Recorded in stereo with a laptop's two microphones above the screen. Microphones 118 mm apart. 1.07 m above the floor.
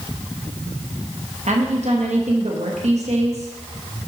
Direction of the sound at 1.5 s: 70° right (ahead or behind).